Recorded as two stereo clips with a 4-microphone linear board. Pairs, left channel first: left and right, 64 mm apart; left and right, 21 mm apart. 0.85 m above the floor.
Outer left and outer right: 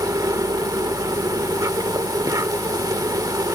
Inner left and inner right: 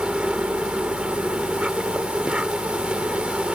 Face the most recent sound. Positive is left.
turn(degrees=-80)